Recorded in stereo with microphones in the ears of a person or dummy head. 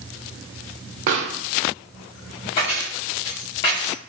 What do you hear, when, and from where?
1.1 s a pop: 45° right (ahead or behind), 0.8 m
2.6 s keys jangling: 20° left (ahead or behind), 0.7 m